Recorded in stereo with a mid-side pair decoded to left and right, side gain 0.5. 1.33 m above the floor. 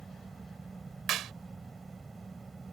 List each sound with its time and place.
0.0 s a fan: 20° right
1.1 s a clap: 65° right